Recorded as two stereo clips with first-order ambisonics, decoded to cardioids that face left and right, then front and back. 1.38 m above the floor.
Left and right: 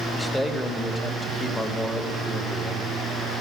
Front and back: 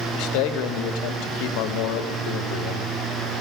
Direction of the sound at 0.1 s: 5° left.